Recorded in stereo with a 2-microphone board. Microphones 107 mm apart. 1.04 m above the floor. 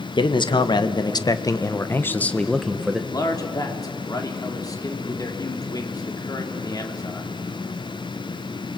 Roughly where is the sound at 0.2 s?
Left.